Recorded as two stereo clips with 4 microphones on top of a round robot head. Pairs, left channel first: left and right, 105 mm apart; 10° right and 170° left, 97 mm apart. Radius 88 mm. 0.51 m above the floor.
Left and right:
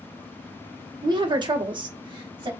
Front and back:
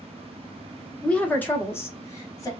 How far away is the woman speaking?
About 1.2 m.